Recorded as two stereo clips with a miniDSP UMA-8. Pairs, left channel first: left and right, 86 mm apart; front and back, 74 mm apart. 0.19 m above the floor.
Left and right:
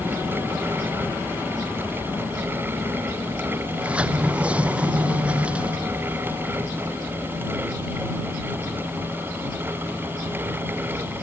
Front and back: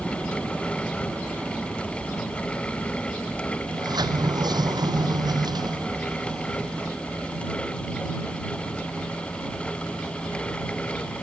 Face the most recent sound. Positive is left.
turn(degrees=-165)